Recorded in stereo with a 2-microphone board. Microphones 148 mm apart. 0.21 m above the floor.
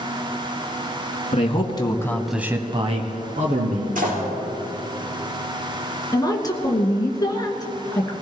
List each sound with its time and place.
1.3 s a man speaking: 40° left (ahead or behind), 2 m; by 4.1 s 60° right (ahead or behind), 3 m
4.0 s a door slam: 70° right (ahead or behind), 4 m
6.1 s a woman speaking: 25° left (ahead or behind), 2.5 m